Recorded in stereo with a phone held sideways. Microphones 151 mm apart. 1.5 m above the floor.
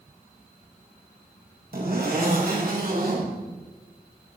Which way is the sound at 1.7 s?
75° right (ahead or behind).